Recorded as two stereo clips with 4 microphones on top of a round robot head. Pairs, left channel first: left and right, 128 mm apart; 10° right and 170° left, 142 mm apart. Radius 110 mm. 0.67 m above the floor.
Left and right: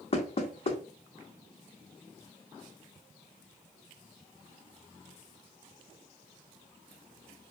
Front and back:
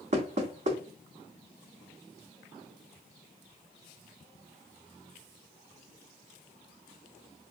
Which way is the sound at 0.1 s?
130° left.